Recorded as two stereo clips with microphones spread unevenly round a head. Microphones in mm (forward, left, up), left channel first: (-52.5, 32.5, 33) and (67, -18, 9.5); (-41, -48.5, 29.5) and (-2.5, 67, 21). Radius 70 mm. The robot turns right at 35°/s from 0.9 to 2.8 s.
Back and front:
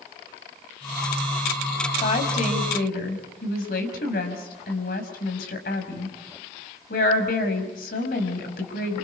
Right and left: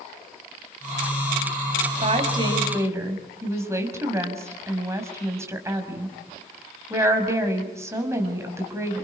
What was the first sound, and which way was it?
A woman speaking, 110° left.